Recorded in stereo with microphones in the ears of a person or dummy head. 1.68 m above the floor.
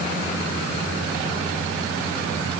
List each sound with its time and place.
Only background noise.